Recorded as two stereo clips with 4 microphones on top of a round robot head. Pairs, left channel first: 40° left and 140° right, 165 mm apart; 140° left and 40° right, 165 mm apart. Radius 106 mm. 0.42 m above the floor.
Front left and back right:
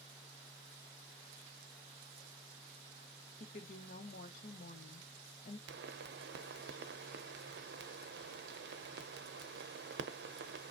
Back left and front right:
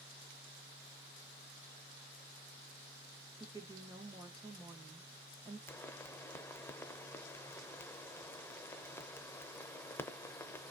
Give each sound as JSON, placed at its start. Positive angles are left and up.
{"t": 3.4, "sound": "a woman speaking", "azimuth_deg": 20, "distance_m": 1.6}
{"t": 5.7, "sound": "a pop", "azimuth_deg": -145, "distance_m": 0.6}